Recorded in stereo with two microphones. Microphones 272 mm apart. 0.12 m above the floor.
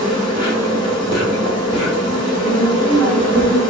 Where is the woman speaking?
15° left (ahead or behind), 2.0 m.